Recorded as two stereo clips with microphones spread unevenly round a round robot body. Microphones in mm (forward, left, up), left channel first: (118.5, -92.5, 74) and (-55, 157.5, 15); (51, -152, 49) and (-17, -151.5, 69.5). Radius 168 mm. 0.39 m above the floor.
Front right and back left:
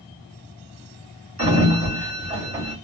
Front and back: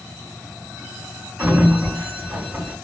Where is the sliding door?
85° left, 1.6 m.